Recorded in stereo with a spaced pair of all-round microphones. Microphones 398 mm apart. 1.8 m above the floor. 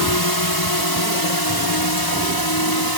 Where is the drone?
65° left (ahead or behind).